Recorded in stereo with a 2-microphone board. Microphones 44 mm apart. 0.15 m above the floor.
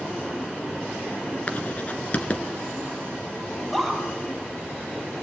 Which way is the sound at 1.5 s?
35° left (ahead or behind).